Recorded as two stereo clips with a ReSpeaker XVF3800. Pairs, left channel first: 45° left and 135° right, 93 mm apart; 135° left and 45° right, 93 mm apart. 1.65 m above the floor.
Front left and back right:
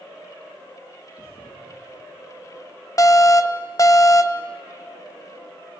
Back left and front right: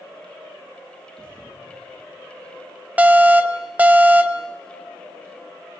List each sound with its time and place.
1.1 s a thud: 55° left, 8.5 m
3.0 s an alarm: 20° left, 0.7 m